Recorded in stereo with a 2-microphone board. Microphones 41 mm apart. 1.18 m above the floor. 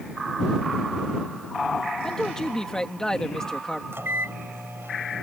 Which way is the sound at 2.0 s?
15° left (ahead or behind).